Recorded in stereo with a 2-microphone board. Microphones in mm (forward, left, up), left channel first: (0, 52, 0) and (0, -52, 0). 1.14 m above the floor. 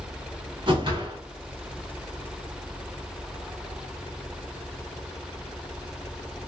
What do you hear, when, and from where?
0.7 s a whoosh: 50° right (ahead or behind), 1.4 m